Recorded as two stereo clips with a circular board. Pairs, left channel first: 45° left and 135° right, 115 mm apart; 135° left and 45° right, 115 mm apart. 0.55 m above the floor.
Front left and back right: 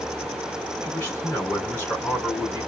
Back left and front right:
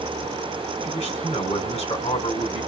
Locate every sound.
0.8 s a man speaking: 120° left, 4.5 m